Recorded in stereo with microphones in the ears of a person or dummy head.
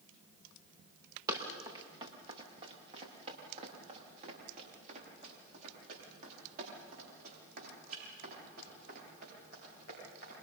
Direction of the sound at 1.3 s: 20° right (ahead or behind).